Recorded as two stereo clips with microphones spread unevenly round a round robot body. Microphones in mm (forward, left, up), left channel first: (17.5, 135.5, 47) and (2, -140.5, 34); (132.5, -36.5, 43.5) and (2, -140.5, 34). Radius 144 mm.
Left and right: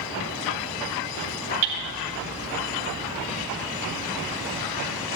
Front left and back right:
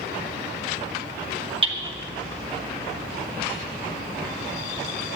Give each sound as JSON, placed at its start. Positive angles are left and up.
{"t": 1.6, "sound": "hammering", "azimuth_deg": -85, "distance_m": 2.0}